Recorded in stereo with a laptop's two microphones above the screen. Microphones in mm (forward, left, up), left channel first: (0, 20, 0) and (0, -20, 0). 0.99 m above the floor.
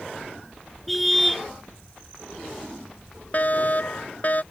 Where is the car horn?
5° left (ahead or behind).